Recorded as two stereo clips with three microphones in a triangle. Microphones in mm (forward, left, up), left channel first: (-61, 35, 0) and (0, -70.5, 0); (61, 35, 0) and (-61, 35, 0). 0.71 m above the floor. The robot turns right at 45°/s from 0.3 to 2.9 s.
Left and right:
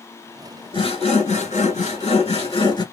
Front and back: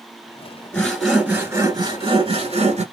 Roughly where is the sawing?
Left.